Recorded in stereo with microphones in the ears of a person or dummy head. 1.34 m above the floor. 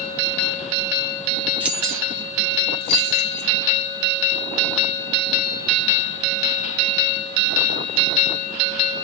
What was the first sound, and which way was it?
Keys jangling, 5° right (ahead or behind).